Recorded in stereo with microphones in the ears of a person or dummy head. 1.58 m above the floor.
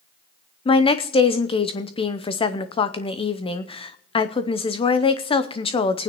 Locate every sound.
0.7 s a woman speaking: 20° left (ahead or behind), 0.7 m